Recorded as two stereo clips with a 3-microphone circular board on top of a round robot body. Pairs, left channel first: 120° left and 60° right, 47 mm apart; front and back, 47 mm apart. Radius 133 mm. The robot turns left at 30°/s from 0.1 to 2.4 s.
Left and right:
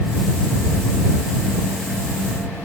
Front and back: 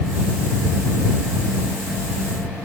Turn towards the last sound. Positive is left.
No sound to turn to.